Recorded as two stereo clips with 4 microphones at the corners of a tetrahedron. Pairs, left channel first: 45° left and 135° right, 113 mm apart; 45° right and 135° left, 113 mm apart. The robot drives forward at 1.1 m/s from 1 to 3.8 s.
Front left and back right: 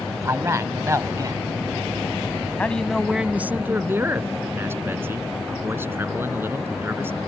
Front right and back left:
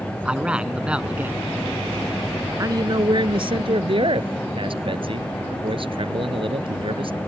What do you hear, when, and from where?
0.2 s a man speaking: 160° right; by 1.5 s 170° right
2.6 s a man speaking: 110° left; by 7.2 s 155° left